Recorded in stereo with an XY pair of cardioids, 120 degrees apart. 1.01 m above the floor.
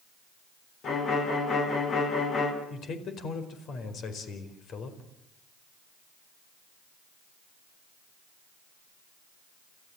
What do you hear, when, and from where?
0.8 s a violin: 50° left, 5 m
2.7 s a man speaking: 55° left, 4.5 m